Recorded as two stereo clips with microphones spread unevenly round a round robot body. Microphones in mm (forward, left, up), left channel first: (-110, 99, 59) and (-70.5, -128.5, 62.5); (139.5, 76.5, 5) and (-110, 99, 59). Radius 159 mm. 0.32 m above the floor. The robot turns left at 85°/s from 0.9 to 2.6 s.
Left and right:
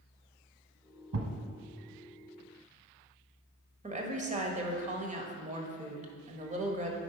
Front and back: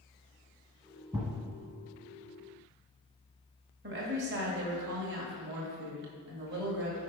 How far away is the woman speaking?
About 1.6 m.